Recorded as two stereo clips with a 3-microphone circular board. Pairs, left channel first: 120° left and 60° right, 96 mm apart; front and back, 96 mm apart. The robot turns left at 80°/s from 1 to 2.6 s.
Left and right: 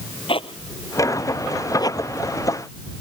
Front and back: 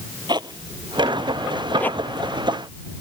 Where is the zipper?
140° left; by 2.3 s 35° left.